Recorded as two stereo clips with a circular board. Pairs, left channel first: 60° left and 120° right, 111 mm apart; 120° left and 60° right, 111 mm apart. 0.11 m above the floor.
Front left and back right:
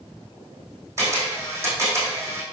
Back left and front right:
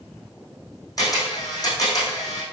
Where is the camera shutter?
175° left, 4 m.